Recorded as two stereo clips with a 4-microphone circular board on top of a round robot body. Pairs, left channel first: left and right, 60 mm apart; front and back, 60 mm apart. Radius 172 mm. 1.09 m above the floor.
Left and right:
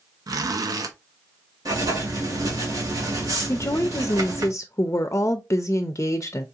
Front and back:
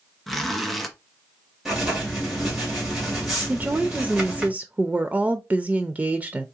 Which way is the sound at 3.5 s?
120° left.